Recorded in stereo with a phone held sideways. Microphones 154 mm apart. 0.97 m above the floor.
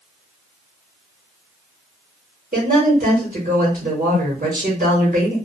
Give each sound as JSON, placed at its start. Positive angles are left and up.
{"t": 2.5, "sound": "a woman speaking", "side_deg": -65, "distance_m": 1.1}